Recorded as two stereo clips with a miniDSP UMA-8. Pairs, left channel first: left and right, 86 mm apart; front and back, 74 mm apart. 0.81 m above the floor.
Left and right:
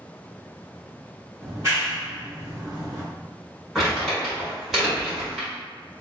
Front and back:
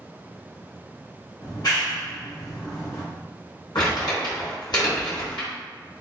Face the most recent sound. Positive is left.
turn(degrees=-5)